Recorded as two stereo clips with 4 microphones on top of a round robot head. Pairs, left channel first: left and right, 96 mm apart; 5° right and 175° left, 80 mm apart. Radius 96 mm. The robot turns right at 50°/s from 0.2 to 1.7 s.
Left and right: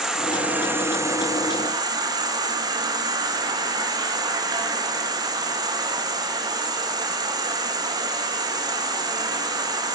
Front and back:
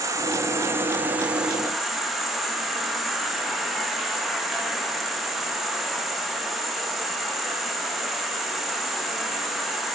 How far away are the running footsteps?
No running footsteps in this recording.